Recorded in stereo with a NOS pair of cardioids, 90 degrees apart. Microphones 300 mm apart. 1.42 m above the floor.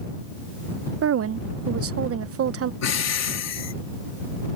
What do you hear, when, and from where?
1.0 s a woman speaking: 50° right
2.8 s breathing: 60° left